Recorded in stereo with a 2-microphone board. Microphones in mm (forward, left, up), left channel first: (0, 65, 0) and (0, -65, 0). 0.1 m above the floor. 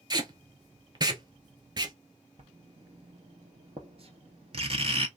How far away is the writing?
About 0.7 m.